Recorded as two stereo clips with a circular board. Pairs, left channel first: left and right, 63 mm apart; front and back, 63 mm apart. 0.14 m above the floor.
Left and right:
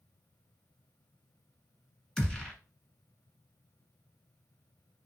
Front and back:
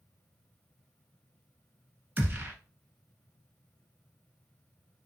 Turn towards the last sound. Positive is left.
turn(degrees=155)